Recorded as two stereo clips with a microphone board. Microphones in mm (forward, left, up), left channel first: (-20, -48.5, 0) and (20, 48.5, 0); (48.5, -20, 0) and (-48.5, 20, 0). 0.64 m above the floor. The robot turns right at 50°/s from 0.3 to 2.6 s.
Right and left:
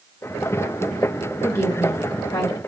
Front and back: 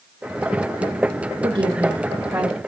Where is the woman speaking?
Straight behind, 1.4 m; by 2.6 s 120° right, 1.4 m.